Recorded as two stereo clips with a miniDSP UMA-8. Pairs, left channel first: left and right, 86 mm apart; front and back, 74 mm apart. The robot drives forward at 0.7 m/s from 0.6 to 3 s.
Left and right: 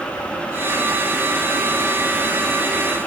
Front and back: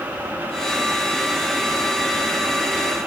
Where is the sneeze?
I don't hear a sneeze.